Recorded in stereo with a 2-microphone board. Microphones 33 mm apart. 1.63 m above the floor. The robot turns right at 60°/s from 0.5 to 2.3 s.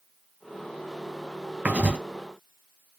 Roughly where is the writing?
Right.